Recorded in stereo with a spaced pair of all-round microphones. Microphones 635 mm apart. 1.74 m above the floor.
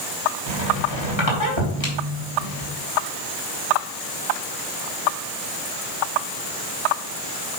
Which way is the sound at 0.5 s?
45° left (ahead or behind).